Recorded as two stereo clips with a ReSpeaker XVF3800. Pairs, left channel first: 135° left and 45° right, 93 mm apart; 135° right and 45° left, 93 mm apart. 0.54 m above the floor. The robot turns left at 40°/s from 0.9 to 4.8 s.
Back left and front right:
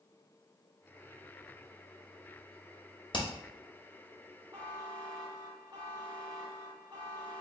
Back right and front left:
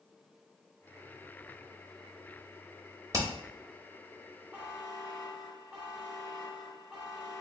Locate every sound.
3.1 s hammering: 100° left, 0.7 m; by 3.3 s 95° left, 0.7 m
4.5 s a buzzer: 15° right, 1.2 m; by 7.4 s 25° right, 1.2 m